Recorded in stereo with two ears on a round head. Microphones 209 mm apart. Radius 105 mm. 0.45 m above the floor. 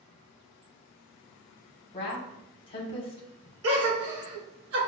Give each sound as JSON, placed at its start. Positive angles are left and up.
{"t": 1.9, "sound": "a woman speaking", "side_deg": 25, "distance_m": 1.0}
{"t": 3.6, "sound": "a gasp", "side_deg": -85, "distance_m": 1.3}